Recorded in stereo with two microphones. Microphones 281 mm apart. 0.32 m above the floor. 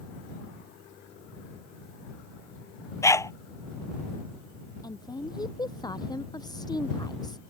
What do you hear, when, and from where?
3.0 s a dog barking: 10° left (ahead or behind)
4.8 s a woman speaking: 15° left (ahead or behind)